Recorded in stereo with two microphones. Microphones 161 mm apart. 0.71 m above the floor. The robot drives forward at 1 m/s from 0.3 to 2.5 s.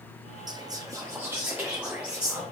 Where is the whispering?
25° right (ahead or behind), 0.6 m; by 2.4 s 5° right (ahead or behind), 2 m.